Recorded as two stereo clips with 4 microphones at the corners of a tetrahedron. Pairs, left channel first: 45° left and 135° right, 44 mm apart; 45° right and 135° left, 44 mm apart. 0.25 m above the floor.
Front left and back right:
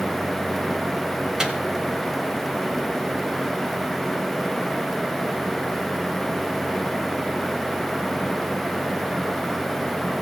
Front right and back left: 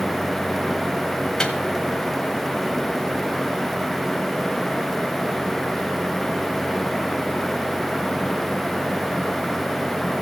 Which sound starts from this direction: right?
A microwave, at 1.4 s.